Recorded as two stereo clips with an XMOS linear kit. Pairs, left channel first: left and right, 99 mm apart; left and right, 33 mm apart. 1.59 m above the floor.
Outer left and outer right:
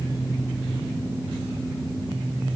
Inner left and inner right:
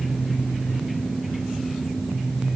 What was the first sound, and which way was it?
Only background noise.